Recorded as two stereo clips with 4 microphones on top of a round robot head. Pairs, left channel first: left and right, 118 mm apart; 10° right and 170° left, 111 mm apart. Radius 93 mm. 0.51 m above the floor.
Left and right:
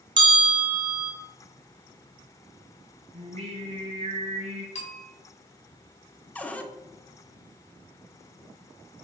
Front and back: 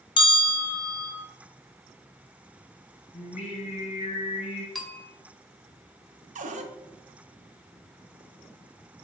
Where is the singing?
50° right, 3 m.